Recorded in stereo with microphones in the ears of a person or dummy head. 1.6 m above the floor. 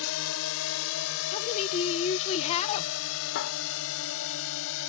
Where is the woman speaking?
35° left (ahead or behind).